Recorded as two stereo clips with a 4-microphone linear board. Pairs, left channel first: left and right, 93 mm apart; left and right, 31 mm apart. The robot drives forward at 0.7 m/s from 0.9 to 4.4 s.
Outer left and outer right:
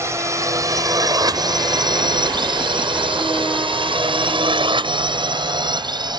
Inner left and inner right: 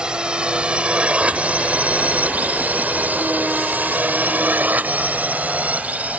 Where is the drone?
30° right (ahead or behind); by 6.2 s 50° right (ahead or behind).